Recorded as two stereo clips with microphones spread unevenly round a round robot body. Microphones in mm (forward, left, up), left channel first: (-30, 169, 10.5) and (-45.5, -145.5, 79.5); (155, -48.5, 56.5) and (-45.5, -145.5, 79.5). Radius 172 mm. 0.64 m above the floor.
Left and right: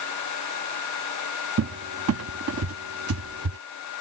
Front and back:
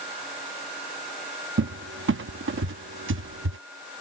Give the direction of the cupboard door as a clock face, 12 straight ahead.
5 o'clock.